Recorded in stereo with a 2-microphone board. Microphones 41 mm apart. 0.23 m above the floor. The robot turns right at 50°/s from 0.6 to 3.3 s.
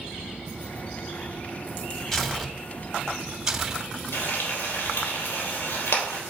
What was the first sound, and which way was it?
Tearing paper, 10° left (ahead or behind).